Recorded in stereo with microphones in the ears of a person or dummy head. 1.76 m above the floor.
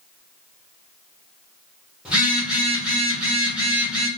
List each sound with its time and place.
2.0 s a phone buzzing: 5° right (ahead or behind), 0.7 m